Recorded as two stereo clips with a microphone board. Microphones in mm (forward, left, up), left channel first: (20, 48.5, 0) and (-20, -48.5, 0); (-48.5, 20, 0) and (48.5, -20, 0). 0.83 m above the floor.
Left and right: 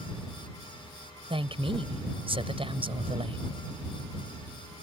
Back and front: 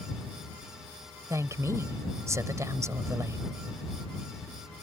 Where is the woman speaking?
85° right.